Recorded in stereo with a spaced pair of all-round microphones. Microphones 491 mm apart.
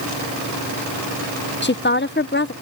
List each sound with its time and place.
1.6 s a woman speaking: 25° left (ahead or behind)